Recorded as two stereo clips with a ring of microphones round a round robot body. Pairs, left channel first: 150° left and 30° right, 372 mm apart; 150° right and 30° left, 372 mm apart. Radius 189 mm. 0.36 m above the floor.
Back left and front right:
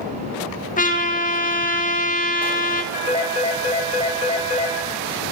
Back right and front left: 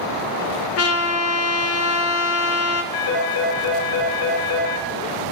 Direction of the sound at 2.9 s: 140° right.